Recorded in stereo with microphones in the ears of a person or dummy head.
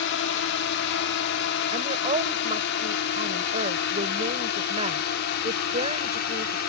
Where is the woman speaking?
35° right (ahead or behind).